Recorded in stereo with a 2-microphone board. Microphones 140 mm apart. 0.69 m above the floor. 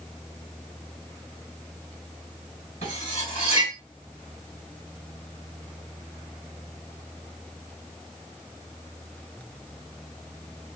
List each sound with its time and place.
2.8 s cutlery clinking: 55° left (ahead or behind), 1.3 m